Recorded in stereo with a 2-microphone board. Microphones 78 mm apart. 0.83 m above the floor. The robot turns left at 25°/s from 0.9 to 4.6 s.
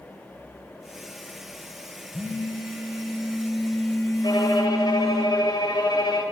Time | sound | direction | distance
2.1 | a phone buzzing | 55° left | 9 m
4.2 | a violin | 75° left (ahead or behind) | 3 m